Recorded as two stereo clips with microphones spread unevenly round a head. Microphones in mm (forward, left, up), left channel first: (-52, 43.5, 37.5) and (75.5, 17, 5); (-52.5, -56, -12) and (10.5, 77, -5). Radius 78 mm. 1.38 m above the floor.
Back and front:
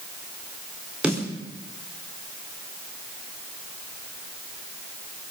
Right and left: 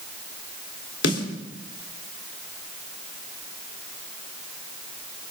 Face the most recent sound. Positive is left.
turn(degrees=-95)